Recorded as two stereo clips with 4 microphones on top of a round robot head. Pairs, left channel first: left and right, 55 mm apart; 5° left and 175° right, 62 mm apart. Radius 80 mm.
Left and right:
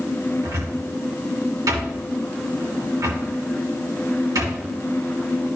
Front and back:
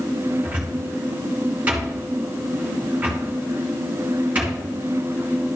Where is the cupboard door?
105° right, 3 m.